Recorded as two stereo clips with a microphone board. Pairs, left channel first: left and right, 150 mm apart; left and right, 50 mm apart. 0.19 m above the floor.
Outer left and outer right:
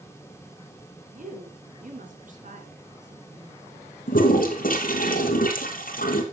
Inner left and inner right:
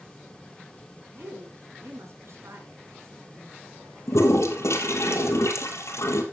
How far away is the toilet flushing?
About 2.5 m.